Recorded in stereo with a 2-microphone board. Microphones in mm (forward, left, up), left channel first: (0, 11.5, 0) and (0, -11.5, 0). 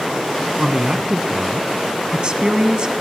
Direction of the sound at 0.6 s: 35° right (ahead or behind).